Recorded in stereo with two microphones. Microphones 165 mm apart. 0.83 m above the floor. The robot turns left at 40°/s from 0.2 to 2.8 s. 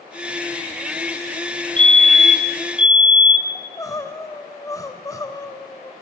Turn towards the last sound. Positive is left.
turn(degrees=20)  # may be behind; listen again after turning